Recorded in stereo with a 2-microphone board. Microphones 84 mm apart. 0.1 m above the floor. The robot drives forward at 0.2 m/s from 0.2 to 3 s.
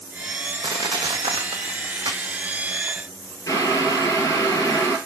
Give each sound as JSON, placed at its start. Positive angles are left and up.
{"t": 0.6, "sound": "crushing", "side_deg": -80, "distance_m": 0.9}
{"t": 3.5, "sound": "boiling", "side_deg": 40, "distance_m": 2.0}